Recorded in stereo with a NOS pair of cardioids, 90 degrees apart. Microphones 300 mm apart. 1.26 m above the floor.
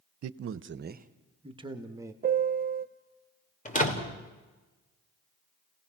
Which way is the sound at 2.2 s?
30° right.